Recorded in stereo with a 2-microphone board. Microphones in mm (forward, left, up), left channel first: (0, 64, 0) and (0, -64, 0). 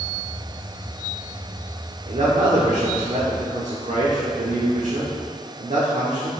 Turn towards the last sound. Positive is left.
turn(degrees=-65)  # may be behind; listen again after turning